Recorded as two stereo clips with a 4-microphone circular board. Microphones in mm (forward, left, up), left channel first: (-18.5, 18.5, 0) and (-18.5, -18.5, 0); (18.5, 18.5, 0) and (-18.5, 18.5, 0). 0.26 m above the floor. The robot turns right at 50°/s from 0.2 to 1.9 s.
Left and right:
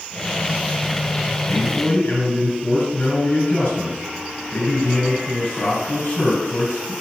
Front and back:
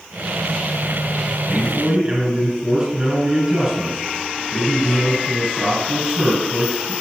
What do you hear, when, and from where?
1.5 s a man speaking: 95° left, 3.5 m; by 6.9 s 115° left, 3.5 m